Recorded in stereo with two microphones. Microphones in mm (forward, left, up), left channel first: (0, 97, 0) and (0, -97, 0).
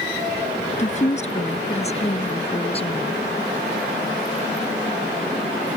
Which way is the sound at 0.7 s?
40° left (ahead or behind).